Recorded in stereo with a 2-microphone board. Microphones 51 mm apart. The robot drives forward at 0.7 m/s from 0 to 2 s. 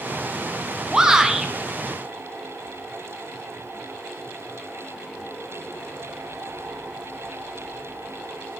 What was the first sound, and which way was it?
A shout, 15° right (ahead or behind).